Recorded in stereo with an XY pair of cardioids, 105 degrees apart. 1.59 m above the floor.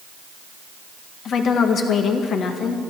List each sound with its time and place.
1.2 s a woman speaking: 60° left, 1.8 m